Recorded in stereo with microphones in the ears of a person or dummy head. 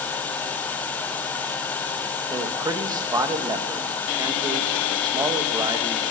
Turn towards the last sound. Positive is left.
turn(degrees=-20)  # may be behind; listen again after turning